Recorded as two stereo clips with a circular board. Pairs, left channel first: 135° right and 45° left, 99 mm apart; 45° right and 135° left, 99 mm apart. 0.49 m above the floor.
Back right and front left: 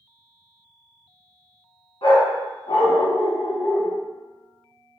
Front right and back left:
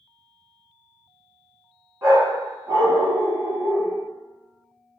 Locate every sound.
2.0 s a dog barking: 170° right, 1.3 m